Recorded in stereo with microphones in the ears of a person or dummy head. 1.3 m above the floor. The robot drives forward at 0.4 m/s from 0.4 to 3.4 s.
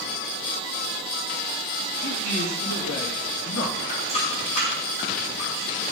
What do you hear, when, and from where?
2.0 s a man speaking: 80° left, 2 m; by 3.8 s 75° left (ahead or behind), 2 m
3.9 s a running tap: 40° left (ahead or behind), 3.5 m